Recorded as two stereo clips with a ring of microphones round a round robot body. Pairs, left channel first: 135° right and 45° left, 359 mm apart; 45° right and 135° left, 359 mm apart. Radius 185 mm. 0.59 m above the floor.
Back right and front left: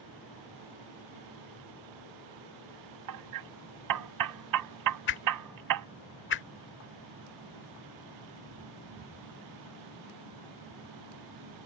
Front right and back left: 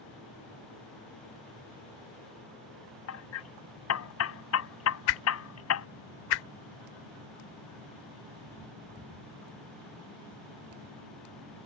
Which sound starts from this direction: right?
A whoosh, at 5.1 s.